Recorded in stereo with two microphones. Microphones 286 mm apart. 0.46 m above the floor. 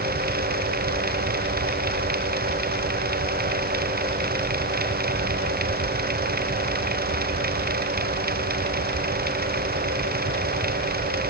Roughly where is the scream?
No scream in this recording.